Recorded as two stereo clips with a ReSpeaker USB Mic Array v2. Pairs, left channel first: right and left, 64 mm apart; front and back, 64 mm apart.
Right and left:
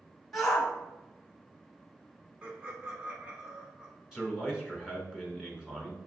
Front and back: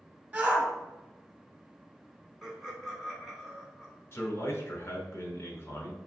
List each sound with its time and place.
0.3 s a shout: 170° right, 1.3 m
2.4 s laughter: 90° left, 1.0 m
4.1 s a man speaking: 15° left, 1.3 m